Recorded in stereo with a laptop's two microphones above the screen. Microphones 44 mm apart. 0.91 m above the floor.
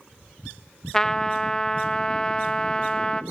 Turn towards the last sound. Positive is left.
turn(degrees=15)  # may be behind; listen again after turning